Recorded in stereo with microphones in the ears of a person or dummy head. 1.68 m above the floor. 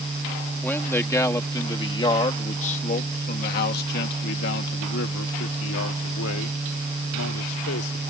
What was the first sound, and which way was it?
A man speaking, 10° left (ahead or behind).